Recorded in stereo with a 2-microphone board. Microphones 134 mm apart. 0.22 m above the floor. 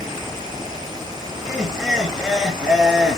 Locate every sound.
1.4 s laughter: 5° right (ahead or behind), 3.5 m